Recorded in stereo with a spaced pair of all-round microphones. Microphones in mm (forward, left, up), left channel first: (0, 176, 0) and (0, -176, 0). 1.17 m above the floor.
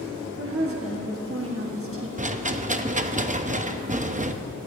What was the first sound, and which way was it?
A woman speaking, 40° right (ahead or behind).